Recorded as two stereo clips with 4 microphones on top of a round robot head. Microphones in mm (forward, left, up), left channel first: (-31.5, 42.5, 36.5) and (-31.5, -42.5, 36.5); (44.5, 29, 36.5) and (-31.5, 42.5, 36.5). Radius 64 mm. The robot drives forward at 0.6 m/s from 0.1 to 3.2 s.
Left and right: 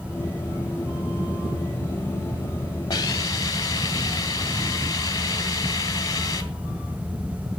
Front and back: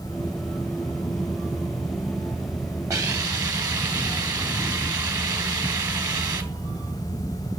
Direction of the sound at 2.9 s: 130° left.